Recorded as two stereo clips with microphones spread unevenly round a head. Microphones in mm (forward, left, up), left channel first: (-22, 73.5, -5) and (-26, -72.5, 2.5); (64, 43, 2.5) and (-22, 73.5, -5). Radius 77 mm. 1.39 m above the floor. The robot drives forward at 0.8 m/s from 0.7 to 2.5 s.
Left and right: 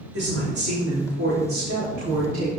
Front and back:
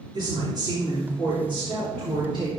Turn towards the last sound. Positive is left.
turn(degrees=-115)